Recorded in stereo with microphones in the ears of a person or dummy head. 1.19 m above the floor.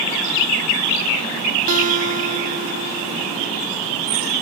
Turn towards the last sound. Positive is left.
turn(degrees=-40)  # may be behind; listen again after turning